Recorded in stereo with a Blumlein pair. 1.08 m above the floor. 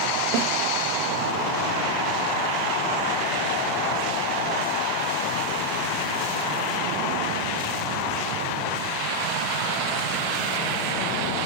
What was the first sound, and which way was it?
A snare drum, 45° right.